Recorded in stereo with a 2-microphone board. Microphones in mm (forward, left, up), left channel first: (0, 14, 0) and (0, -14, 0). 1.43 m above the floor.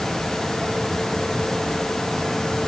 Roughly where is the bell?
No bell in this recording.